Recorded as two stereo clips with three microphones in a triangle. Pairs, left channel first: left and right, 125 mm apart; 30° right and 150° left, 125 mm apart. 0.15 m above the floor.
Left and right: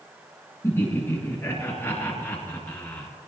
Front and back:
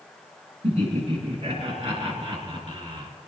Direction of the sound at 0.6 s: 155° left.